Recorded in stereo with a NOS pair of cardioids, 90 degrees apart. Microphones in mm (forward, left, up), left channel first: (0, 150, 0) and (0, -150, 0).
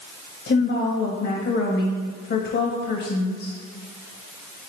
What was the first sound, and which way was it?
A woman speaking, 45° left.